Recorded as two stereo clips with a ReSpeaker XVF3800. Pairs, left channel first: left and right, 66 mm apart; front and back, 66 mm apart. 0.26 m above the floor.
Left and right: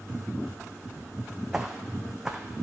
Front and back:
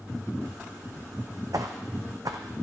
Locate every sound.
1.5 s footsteps: 170° right, 0.7 m